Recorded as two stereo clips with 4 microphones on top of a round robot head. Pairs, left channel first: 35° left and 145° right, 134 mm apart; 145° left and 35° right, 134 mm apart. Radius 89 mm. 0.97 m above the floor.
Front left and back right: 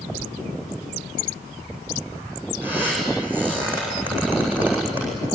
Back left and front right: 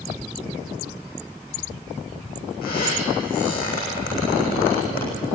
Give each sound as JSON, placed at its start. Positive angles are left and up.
{"t": 2.6, "sound": "a squeak", "azimuth_deg": 135, "distance_m": 7.5}